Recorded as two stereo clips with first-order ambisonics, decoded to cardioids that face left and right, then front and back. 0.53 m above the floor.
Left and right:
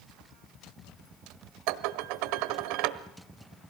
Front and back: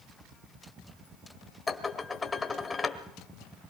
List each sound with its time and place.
1.7 s dishes clattering: 80° right, 1.2 m